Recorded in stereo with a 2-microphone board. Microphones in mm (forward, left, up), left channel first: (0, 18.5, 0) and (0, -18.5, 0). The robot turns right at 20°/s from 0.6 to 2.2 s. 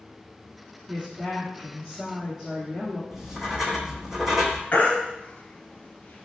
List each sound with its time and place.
0.9 s a woman speaking: 30° right (ahead or behind), 2 m; by 3.0 s 10° right (ahead or behind), 2 m
3.1 s writing: 10° right (ahead or behind), 0.8 m
4.7 s a baby crying: 45° left (ahead or behind), 1.0 m